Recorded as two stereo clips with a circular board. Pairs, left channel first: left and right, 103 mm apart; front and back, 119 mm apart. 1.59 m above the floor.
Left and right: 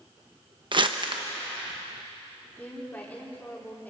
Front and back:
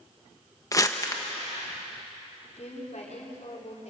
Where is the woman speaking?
15° left, 4 m.